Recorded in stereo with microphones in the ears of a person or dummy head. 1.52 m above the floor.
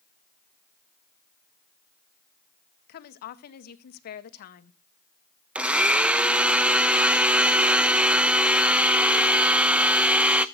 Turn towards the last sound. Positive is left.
turn(degrees=-10)  # may be behind; listen again after turning